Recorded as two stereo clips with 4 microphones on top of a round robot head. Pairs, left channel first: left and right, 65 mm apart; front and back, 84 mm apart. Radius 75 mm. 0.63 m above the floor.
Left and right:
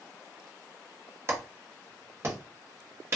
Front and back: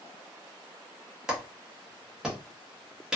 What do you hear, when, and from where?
1.3 s a clap: 105° right, 1.1 m